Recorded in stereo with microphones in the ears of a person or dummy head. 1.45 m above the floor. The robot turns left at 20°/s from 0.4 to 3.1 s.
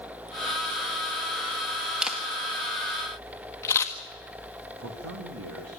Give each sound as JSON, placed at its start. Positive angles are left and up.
{"t": 2.0, "sound": "a camera shutter", "side_deg": 0, "distance_m": 1.6}
{"t": 4.8, "sound": "a man speaking", "side_deg": -80, "distance_m": 1.8}